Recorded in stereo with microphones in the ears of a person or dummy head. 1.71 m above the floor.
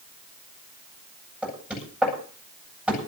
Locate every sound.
1.4 s knocking: 5° right (ahead or behind), 9 m